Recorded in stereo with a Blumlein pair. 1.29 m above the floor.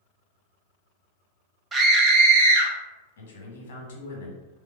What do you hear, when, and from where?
1.7 s a scream: 15° right, 0.7 m; by 2.7 s 60° right, 0.8 m
3.2 s a man speaking: 60° left, 0.9 m